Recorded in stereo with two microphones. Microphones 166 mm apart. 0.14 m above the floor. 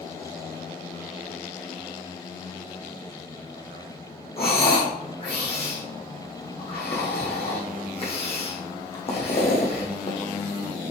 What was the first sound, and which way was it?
Breathing, 40° left (ahead or behind).